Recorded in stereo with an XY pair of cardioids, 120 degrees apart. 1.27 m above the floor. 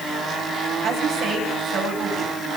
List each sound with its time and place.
0.8 s a woman speaking: 65° right, 9.5 m